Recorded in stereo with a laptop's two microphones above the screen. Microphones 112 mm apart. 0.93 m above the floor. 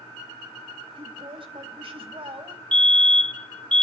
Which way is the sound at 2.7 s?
10° left (ahead or behind).